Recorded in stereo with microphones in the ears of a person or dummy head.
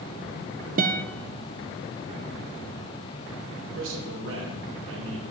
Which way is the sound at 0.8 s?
45° right (ahead or behind).